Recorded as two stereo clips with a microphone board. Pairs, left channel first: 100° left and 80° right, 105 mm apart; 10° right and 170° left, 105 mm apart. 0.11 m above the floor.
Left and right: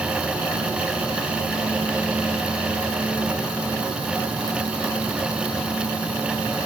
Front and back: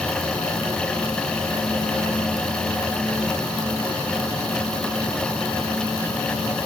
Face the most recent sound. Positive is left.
No sound to turn to.